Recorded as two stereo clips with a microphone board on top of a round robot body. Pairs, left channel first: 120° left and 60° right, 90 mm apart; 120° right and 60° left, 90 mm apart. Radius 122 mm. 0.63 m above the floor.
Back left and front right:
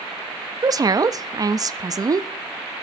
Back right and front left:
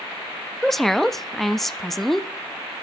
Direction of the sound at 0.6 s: 35° right.